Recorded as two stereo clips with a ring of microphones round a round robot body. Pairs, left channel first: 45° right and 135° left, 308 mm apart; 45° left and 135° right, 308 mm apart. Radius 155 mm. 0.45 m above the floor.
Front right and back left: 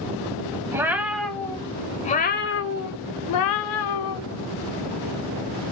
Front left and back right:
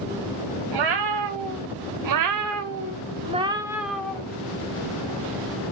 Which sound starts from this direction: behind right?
A cat meowing, at 0.7 s.